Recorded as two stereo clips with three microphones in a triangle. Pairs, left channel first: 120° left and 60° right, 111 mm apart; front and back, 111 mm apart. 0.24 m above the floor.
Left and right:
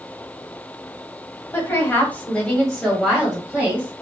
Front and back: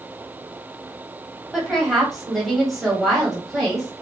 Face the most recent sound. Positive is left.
turn(degrees=-85)